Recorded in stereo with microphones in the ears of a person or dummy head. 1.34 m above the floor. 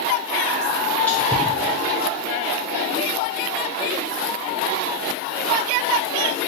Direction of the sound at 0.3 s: Centre (ahead or behind).